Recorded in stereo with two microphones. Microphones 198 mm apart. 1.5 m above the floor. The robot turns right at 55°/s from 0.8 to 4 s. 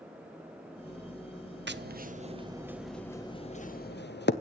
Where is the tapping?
65° right (ahead or behind), 0.7 m; by 4.3 s 60° left (ahead or behind), 0.7 m.